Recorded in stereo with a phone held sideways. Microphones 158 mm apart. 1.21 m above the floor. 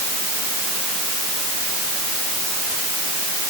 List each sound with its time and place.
Only background noise.